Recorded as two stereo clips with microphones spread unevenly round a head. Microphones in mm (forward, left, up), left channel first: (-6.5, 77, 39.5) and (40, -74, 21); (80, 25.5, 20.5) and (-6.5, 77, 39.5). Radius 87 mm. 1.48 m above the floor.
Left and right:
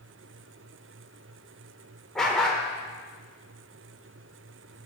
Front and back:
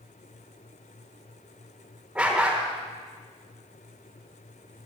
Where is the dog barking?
170° left, 1.2 m.